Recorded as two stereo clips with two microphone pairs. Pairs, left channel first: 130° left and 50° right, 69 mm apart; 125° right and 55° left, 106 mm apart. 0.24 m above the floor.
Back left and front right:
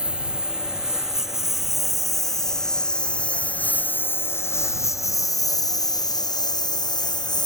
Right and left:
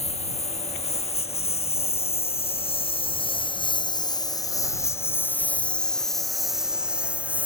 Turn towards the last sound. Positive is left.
turn(degrees=135)